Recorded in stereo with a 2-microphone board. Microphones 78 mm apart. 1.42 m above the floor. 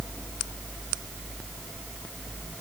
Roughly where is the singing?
I don't hear singing.